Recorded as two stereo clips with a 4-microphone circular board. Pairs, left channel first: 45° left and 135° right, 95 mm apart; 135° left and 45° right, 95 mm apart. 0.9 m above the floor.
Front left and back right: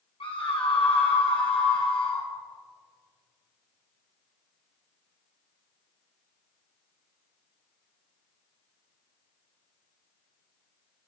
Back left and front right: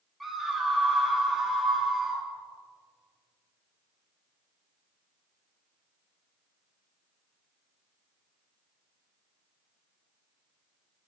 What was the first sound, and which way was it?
A scream, 45° left.